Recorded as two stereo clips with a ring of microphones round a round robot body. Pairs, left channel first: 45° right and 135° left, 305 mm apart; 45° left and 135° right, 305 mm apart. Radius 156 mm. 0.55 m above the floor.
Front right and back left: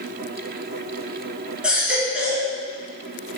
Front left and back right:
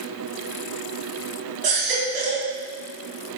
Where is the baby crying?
140° right, 2.5 m.